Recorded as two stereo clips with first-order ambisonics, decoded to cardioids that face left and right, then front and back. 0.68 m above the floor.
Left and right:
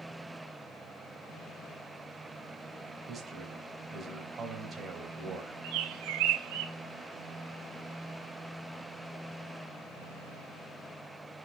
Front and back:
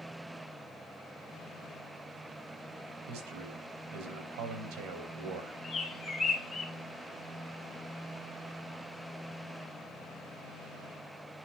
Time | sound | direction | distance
3.1 | a man speaking | 160° right | 4 m
5.6 | a bird | 80° right | 2.5 m